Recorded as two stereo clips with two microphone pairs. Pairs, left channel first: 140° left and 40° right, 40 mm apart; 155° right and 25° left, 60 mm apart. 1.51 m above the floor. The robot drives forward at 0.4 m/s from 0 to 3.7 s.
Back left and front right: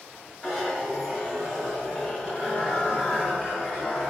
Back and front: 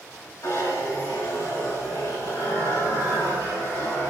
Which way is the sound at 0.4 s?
135° right.